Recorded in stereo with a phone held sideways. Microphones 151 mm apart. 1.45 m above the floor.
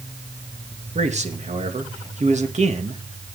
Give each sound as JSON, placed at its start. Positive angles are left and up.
{"t": 0.9, "sound": "a man speaking", "side_deg": -50, "distance_m": 2.0}